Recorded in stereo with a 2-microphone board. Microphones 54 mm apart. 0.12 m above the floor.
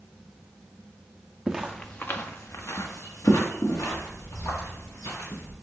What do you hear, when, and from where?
1.5 s footsteps: 15° right (ahead or behind), 0.5 m; by 5.5 s 80° left, 3 m